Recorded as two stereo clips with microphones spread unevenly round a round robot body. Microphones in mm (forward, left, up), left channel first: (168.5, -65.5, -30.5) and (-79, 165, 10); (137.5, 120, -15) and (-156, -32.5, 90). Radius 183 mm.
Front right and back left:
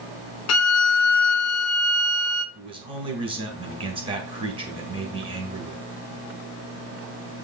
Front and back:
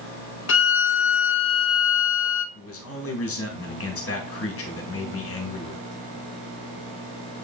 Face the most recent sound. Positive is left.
turn(degrees=60)